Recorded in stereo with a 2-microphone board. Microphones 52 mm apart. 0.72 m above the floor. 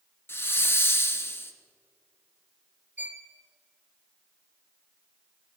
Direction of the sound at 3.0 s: 35° right (ahead or behind).